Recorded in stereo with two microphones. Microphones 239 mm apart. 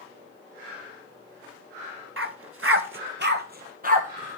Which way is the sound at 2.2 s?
60° right (ahead or behind).